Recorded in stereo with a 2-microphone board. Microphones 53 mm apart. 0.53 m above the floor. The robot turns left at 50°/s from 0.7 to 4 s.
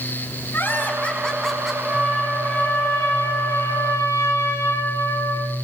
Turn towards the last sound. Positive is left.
turn(degrees=80)